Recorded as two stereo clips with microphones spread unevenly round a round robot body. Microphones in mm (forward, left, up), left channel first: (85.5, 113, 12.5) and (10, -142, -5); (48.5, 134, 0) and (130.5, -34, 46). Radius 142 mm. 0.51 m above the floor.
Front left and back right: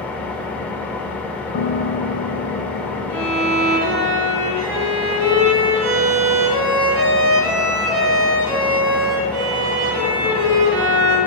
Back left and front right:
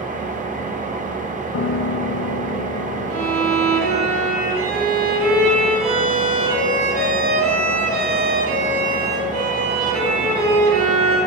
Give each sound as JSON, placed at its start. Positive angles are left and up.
{"t": 0.0, "sound": "an engine running", "azimuth_deg": -15, "distance_m": 1.6}
{"t": 1.5, "sound": "a piano", "azimuth_deg": 125, "distance_m": 0.7}
{"t": 3.1, "sound": "a violin", "azimuth_deg": -75, "distance_m": 2.5}